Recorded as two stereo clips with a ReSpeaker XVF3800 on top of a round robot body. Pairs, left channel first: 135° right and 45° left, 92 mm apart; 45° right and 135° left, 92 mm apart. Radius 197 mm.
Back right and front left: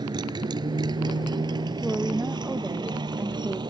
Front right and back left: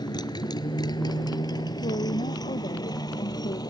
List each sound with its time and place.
0.0 s a motorcycle: straight ahead; by 3.7 s 5° left
1.8 s a woman speaking: 30° right